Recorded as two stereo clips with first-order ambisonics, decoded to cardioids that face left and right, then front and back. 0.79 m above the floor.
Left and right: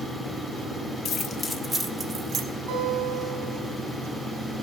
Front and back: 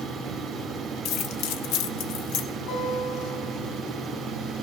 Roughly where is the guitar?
Ahead right.